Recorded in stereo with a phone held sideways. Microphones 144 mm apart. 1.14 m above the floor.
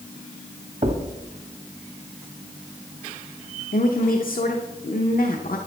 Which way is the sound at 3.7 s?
80° left.